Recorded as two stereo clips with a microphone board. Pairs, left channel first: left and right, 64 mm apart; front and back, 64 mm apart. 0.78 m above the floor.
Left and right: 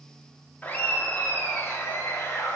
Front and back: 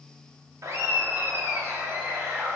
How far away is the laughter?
About 1.3 m.